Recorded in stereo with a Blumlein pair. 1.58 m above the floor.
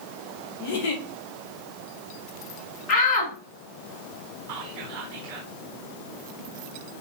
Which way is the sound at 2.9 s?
35° left.